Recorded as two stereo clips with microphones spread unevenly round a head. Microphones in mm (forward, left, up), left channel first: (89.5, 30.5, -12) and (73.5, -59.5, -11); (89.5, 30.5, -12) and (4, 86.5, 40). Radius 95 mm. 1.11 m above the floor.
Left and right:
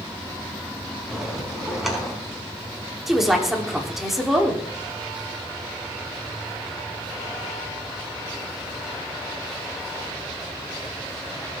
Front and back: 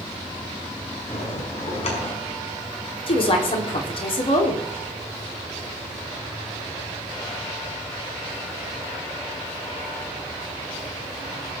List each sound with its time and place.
1.1 s a bell: 15° right, 5 m
3.1 s a woman speaking: 15° right, 3.5 m